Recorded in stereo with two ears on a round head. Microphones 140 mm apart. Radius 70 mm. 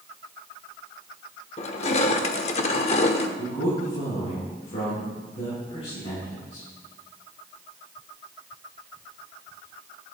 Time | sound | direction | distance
1.6 | crushing | 40° left (ahead or behind) | 0.9 m
3.4 | a man speaking | 40° left (ahead or behind) | 6 m